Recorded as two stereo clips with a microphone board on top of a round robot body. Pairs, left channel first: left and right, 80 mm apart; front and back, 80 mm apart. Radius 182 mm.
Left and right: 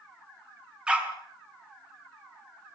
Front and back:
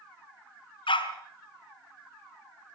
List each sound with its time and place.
0.9 s a dog barking: 10° right, 4 m